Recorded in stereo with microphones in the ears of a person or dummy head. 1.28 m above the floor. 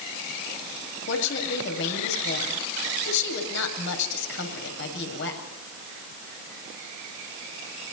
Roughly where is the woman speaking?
Left.